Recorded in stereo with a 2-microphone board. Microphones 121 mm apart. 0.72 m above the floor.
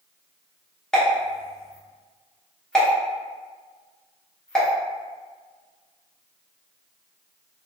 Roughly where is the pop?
Centre.